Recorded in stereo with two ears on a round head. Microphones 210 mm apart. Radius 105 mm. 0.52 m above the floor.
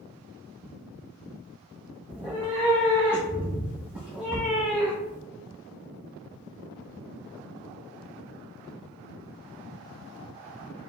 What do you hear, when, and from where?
2.1 s a cat meowing: 5° right (ahead or behind), 1.2 m